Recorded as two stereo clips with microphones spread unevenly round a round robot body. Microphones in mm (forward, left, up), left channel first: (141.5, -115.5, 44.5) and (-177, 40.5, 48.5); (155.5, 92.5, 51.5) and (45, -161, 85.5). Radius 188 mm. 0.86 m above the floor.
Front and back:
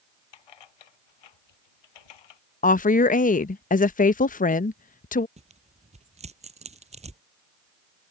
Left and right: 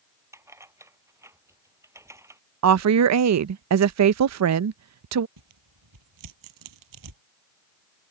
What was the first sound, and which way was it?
Keys jangling, 35° right.